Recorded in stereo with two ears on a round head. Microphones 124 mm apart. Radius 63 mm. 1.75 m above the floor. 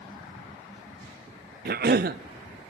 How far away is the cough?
About 0.5 m.